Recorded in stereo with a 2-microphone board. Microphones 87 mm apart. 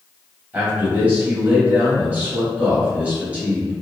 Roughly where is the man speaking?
Centre.